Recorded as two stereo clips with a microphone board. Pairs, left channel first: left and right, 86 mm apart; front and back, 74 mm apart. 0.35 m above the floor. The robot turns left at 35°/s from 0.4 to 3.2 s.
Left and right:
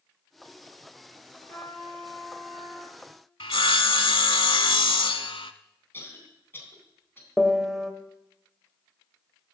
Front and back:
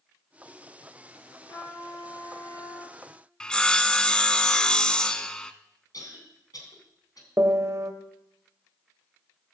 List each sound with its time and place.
1.5 s a trumpet: 35° left, 5.5 m; by 3.0 s 20° right, 5.5 m
3.4 s sawing: 80° left, 0.6 m
5.9 s a cough: 25° left, 3 m
7.4 s a piano: 175° left, 0.9 m